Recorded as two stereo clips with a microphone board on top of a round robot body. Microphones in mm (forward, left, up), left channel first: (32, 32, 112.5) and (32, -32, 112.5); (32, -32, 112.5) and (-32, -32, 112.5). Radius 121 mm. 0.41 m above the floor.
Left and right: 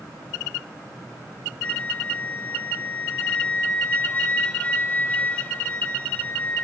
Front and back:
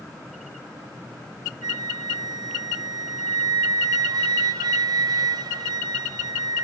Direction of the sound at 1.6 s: 160° left.